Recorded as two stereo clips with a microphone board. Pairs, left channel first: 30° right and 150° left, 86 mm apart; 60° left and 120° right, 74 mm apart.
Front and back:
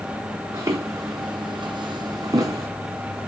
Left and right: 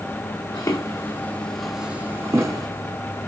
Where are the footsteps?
100° left, 0.8 m; by 2.7 s 160° right, 0.8 m.